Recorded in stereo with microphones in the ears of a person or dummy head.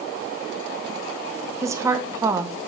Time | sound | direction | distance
1.6 | a woman speaking | 20° right (ahead or behind) | 1.1 m